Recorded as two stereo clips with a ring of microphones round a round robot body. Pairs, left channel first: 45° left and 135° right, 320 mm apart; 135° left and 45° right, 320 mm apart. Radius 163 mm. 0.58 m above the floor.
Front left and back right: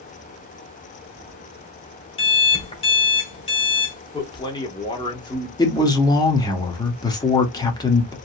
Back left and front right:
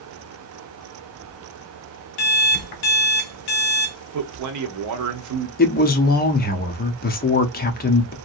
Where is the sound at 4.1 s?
30° right, 0.9 m.